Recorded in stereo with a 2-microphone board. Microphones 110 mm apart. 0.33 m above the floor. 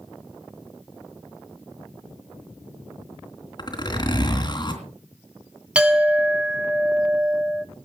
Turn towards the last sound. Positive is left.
turn(degrees=-10)  # may be behind; listen again after turning